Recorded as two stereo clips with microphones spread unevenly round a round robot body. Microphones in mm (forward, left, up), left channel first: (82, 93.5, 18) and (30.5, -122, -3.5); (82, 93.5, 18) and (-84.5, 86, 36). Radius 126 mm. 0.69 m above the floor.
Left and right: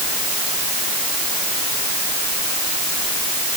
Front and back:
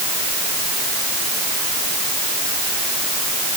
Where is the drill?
I don't hear a drill.